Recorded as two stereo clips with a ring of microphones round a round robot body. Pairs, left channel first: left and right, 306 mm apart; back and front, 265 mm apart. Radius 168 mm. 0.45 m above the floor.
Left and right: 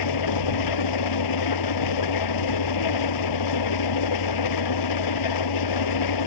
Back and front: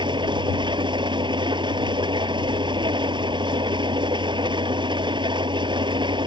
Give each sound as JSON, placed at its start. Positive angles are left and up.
{"t": 0.0, "sound": "an engine running", "azimuth_deg": 75}